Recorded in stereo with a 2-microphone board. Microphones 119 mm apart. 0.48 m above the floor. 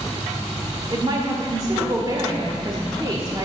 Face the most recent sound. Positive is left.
turn(degrees=-40)  # may be behind; listen again after turning